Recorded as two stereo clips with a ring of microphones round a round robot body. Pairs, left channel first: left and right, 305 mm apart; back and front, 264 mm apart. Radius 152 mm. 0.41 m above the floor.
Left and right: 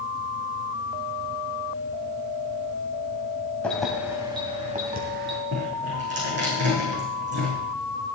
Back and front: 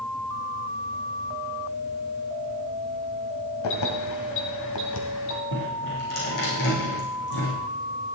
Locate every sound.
3.6 s keys jangling: 175° left, 2 m; by 5.4 s 145° right, 2.5 m
5.5 s dripping: 145° right, 6.5 m